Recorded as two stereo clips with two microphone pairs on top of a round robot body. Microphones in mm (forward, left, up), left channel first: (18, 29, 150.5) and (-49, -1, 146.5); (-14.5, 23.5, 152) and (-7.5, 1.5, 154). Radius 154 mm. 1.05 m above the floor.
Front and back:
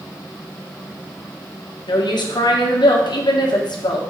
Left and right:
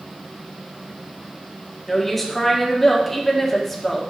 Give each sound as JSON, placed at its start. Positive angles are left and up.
{"t": 1.9, "sound": "a woman speaking", "azimuth_deg": 25, "distance_m": 1.5}